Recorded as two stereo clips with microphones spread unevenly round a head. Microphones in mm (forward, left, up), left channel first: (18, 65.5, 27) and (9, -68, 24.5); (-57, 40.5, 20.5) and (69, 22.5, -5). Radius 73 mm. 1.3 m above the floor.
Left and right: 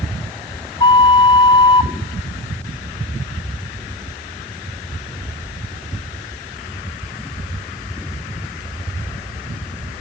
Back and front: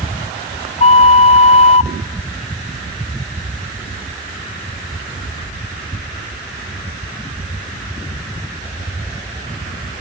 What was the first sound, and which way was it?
A flute, 145° left.